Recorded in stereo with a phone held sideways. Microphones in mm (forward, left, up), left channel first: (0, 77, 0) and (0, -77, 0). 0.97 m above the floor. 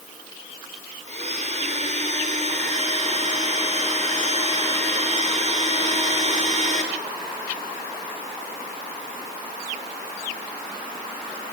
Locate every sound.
1.1 s a blender: 45° right (ahead or behind), 4 m